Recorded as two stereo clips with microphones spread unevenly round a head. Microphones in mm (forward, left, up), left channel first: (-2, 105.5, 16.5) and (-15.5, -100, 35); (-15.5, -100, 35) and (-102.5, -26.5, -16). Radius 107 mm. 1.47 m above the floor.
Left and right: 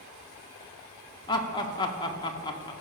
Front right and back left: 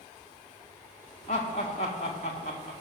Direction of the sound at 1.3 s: 15° left.